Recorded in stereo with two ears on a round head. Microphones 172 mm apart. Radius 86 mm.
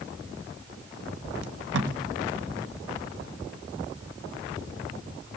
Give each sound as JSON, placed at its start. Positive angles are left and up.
{"t": 1.4, "sound": "tape being pulled", "side_deg": -75, "distance_m": 1.9}